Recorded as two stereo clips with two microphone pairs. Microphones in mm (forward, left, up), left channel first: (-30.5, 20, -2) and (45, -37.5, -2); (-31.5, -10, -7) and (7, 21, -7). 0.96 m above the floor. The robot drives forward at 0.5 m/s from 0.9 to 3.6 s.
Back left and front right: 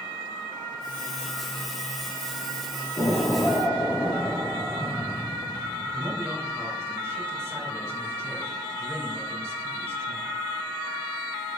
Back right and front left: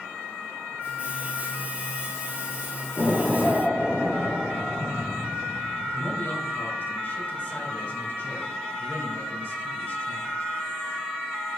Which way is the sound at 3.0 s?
175° right.